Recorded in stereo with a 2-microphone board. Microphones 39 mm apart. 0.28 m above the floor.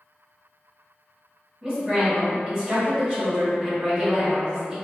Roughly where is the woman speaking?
Centre.